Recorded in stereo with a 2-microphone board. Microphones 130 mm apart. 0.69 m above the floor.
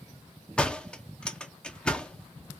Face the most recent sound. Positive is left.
turn(degrees=10)  # may be behind; listen again after turning